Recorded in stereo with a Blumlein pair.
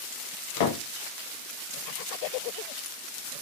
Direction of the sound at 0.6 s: 50° left.